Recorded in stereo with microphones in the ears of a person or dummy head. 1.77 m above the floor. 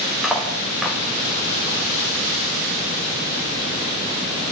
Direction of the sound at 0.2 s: 5° right (ahead or behind).